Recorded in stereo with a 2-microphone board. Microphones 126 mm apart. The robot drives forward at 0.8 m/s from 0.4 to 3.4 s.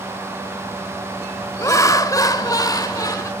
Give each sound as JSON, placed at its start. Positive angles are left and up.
{"t": 1.6, "sound": "laughter", "side_deg": 25, "distance_m": 1.4}